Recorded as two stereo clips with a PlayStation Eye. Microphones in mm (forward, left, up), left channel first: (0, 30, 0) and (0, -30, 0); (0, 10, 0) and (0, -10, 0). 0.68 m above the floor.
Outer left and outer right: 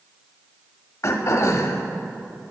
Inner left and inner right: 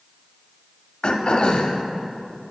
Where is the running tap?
I don't hear a running tap.